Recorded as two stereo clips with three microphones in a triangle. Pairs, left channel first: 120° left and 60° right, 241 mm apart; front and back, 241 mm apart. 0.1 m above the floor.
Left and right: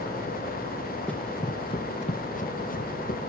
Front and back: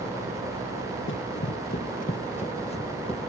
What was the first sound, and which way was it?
Running footsteps, 35° left.